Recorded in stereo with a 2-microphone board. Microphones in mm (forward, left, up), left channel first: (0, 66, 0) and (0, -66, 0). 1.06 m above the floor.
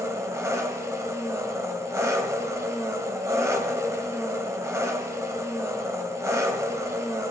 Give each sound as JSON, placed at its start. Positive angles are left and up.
{"t": 0.0, "sound": "an engine running", "side_deg": -25, "distance_m": 1.3}